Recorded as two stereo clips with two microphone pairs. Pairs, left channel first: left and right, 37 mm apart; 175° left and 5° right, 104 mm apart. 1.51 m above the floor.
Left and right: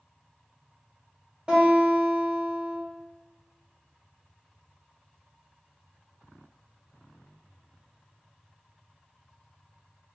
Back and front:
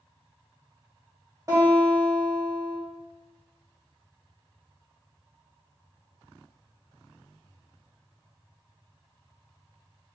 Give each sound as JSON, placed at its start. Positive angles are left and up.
{"t": 1.5, "sound": "a guitar", "azimuth_deg": -35, "distance_m": 1.4}